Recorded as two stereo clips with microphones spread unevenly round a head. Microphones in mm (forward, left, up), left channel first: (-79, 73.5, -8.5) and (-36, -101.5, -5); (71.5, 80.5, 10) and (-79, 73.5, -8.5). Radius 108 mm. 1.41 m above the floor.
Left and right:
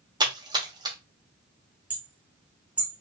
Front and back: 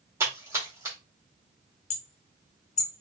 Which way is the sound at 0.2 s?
105° right.